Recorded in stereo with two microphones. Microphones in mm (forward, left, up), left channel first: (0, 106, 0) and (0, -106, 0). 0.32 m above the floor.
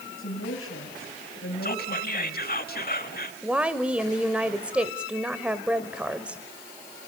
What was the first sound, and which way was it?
A woman speaking, 75° left (ahead or behind).